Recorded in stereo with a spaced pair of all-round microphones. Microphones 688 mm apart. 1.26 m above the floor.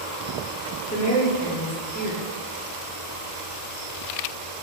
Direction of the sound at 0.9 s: 10° left (ahead or behind).